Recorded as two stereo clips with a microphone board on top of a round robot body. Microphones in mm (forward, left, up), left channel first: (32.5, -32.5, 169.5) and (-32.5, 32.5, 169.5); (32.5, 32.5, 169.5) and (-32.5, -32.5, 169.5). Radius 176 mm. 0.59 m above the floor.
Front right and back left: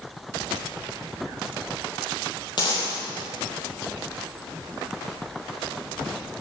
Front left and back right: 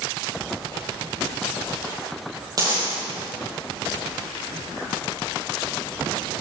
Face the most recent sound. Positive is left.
turn(degrees=-85)